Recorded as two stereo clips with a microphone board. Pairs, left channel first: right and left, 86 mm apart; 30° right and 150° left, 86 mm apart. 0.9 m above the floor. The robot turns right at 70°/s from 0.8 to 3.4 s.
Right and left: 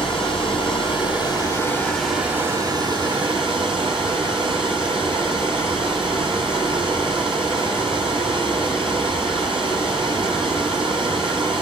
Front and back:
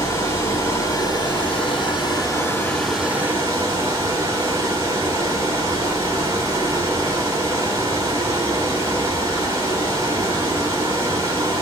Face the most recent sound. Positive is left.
turn(degrees=95)